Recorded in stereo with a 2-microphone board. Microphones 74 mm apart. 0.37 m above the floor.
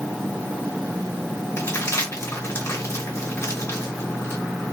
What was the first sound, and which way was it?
Crumpling, 40° left (ahead or behind).